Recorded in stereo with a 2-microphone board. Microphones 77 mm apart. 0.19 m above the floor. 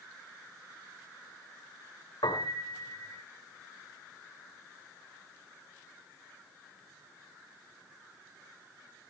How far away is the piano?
About 4.5 m.